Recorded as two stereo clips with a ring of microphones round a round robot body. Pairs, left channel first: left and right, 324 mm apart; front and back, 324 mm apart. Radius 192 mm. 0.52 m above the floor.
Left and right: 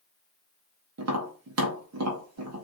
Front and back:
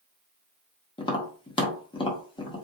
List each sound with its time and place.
1.0 s tapping: 70° right, 1.2 m